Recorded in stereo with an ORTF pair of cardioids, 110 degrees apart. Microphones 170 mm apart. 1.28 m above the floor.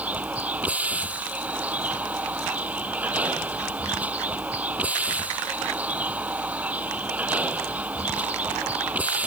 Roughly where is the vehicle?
Ahead.